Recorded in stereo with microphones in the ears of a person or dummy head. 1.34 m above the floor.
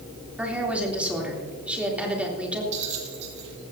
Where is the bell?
40° right (ahead or behind), 2 m.